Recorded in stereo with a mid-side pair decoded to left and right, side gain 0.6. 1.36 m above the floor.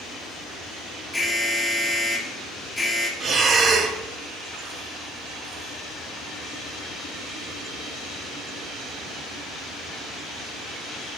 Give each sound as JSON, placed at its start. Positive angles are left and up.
{"t": 1.1, "sound": "an alarm", "azimuth_deg": 5, "distance_m": 1.9}
{"t": 3.2, "sound": "breathing", "azimuth_deg": -40, "distance_m": 1.1}